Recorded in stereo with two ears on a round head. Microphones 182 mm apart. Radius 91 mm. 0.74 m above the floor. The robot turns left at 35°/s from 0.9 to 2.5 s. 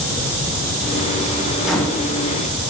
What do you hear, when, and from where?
1.6 s a microwave: centre (ahead or behind), 1.4 m; by 2.1 s 15° left (ahead or behind), 1.4 m